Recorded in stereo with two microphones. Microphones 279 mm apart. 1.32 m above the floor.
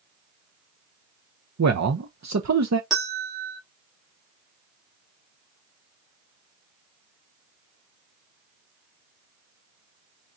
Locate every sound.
1.6 s a man speaking: 75° right (ahead or behind), 0.8 m
2.9 s a bell: centre (ahead or behind), 2.5 m